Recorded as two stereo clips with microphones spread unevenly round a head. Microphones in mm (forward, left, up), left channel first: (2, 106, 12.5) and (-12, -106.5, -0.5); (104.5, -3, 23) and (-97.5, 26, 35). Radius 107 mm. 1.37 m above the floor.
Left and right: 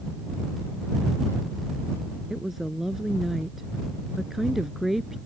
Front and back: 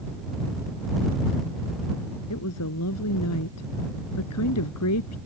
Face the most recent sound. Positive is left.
turn(degrees=-5)